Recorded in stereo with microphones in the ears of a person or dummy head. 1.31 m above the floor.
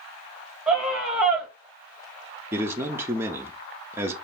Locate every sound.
0.7 s a scream: 10° right (ahead or behind), 1.4 m
2.5 s a man speaking: 20° right (ahead or behind), 0.5 m